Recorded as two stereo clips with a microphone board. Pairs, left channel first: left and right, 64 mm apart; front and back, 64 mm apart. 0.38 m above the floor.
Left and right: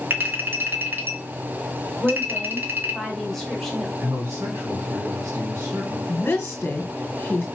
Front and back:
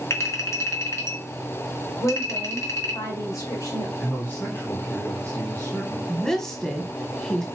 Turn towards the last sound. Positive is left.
turn(degrees=70)